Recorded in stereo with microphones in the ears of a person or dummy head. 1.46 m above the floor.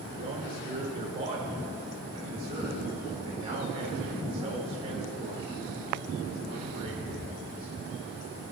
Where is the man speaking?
35° right (ahead or behind), 5 m.